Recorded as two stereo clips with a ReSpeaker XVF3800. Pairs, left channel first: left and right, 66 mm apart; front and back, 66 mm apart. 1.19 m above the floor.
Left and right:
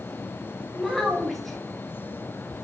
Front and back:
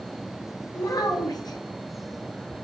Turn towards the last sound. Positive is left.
turn(degrees=0)